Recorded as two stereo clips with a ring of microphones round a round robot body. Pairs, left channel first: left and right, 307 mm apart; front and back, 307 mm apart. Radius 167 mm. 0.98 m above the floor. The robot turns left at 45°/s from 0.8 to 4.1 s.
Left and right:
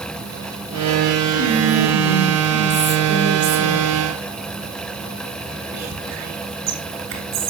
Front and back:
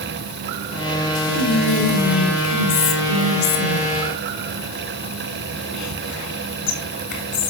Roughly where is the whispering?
Left.